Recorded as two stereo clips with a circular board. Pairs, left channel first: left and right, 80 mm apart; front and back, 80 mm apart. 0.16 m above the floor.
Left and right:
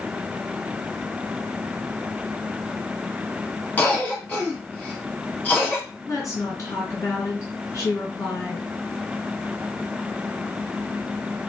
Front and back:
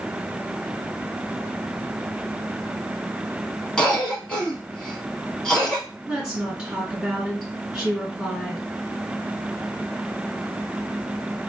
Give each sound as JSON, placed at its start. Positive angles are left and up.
{"t": 3.8, "sound": "a cough", "azimuth_deg": 65, "distance_m": 1.4}
{"t": 6.1, "sound": "a woman speaking", "azimuth_deg": 105, "distance_m": 2.0}